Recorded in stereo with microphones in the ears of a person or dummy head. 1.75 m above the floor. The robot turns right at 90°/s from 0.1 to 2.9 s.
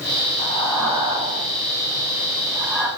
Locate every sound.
0.4 s breathing: 35° left (ahead or behind), 1.7 m; by 2.9 s 5° left (ahead or behind), 1.7 m